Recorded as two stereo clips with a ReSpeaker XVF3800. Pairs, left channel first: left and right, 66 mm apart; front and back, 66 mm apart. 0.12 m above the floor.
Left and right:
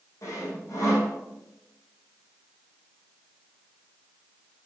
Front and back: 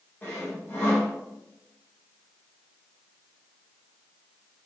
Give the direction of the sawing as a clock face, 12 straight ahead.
10 o'clock.